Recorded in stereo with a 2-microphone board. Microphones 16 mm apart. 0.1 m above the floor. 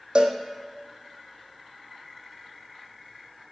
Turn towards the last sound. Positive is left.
turn(degrees=-60)  # may be behind; listen again after turning